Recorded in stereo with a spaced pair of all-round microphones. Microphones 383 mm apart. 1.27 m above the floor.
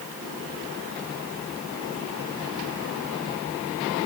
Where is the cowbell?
No cowbell in this recording.